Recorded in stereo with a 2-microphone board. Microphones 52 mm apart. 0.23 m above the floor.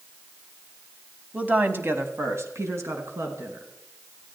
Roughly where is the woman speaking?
Right.